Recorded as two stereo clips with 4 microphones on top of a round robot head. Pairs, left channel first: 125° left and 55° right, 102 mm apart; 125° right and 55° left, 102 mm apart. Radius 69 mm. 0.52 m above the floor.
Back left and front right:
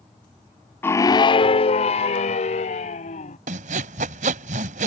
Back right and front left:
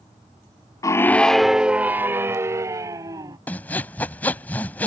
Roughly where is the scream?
Behind.